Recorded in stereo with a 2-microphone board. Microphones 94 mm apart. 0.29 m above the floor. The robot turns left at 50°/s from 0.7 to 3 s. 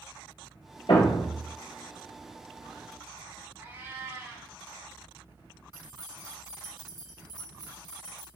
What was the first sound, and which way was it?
A thud, 75° left (ahead or behind).